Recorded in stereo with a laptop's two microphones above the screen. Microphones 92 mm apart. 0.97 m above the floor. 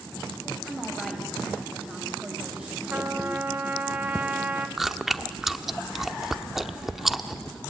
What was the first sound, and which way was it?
A woman speaking, centre (ahead or behind).